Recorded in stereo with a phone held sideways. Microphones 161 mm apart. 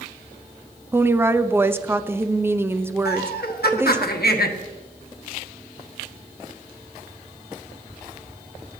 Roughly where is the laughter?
Left.